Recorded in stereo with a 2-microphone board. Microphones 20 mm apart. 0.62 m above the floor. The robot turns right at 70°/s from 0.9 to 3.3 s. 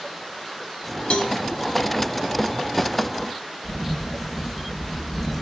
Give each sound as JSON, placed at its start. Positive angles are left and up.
{"t": 1.1, "sound": "a cowbell", "side_deg": 70, "distance_m": 0.8}
{"t": 3.6, "sound": "a camera shutter", "side_deg": 0, "distance_m": 0.7}